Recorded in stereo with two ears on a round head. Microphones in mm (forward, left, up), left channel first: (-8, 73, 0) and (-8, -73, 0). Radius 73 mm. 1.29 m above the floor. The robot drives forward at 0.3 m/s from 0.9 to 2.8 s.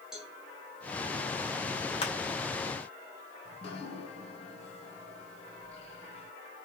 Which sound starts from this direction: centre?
A cowbell, at 0.1 s.